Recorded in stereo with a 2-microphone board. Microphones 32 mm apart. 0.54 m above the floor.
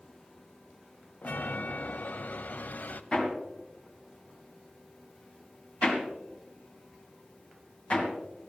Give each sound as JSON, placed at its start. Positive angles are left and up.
{"t": 1.2, "sound": "a chime", "side_deg": 65, "distance_m": 0.5}
{"t": 3.1, "sound": "hammering", "side_deg": 40, "distance_m": 2.0}